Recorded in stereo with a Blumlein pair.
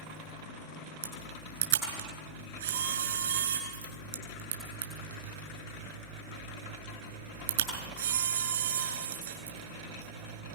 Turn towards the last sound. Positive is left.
turn(degrees=-60)